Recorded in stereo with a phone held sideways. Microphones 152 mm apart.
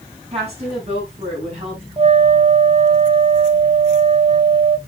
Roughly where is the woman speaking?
Right.